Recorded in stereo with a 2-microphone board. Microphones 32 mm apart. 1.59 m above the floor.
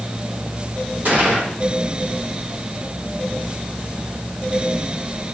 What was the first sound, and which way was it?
A gunshot, 65° right (ahead or behind).